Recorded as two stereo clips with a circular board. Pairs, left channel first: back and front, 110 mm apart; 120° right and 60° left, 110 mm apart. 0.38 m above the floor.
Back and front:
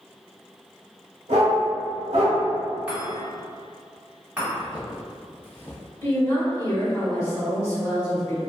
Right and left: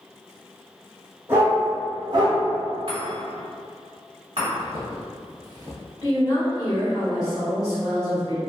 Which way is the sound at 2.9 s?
75° left.